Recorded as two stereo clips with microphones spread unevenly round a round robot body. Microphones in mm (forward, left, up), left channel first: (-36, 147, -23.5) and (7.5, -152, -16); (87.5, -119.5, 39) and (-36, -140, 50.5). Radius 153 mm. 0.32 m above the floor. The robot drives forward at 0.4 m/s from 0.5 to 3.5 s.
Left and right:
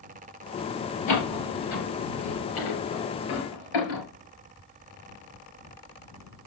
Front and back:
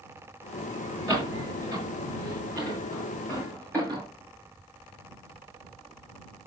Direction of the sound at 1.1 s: 80° left.